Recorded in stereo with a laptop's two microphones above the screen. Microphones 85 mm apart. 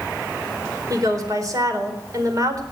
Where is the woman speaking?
45° right (ahead or behind), 4 m.